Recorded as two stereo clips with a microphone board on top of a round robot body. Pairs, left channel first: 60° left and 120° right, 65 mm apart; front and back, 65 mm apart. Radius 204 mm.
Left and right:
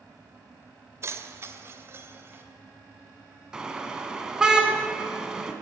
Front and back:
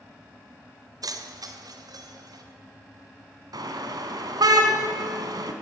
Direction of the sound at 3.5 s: 160° left.